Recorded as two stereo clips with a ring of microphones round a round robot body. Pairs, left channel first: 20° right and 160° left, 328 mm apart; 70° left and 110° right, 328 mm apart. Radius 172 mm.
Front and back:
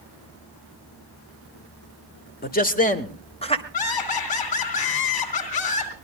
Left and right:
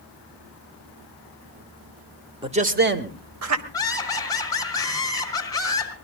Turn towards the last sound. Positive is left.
turn(degrees=-10)